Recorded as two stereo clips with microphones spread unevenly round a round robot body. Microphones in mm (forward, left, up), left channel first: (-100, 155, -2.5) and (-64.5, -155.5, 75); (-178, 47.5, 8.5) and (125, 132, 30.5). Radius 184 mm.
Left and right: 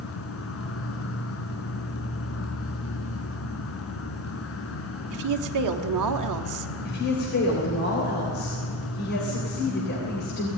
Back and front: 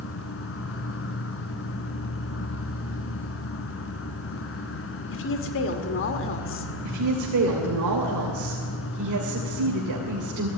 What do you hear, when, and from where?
0.0 s an insect: 145° left, 2 m
5.1 s a woman speaking: 115° right, 1.6 m
6.8 s a woman speaking: 45° left, 3 m